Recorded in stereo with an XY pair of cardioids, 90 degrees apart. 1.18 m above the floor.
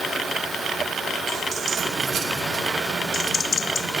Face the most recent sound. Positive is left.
turn(degrees=-55)